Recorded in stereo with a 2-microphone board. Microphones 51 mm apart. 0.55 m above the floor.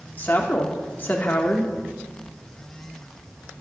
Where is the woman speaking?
35° left (ahead or behind), 1.0 m.